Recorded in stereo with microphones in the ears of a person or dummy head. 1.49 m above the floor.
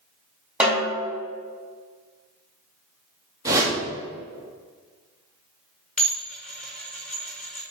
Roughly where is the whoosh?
Right.